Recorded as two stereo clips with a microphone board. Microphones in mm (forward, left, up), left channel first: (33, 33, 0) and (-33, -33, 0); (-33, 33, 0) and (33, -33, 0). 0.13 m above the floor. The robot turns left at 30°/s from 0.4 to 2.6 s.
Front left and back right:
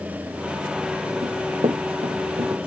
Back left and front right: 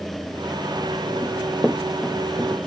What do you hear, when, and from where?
1.2 s running footsteps: 115° right; by 2.7 s 145° right